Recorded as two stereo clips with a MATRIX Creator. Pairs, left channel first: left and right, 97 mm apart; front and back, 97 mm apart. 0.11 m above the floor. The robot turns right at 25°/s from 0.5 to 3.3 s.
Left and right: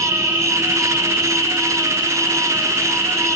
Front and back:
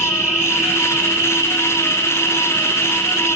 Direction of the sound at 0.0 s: 95° left.